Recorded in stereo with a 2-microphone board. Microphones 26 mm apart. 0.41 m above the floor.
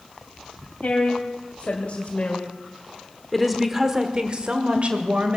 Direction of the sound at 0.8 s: 65° left (ahead or behind).